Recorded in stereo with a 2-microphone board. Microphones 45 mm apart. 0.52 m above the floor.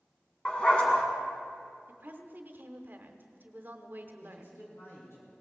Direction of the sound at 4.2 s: 75° left (ahead or behind).